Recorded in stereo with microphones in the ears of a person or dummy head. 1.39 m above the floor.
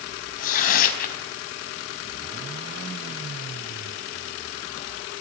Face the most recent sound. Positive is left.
turn(degrees=45)  # may be behind; listen again after turning